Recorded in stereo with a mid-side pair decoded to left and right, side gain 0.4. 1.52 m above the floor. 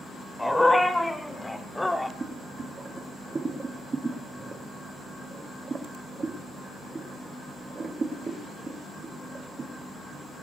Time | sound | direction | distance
0.4 | a dog barking | 10° left | 4 m
2.2 | boiling | 35° right | 2.5 m